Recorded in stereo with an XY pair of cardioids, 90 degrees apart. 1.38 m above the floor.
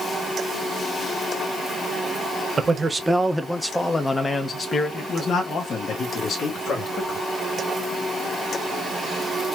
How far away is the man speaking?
About 1.2 m.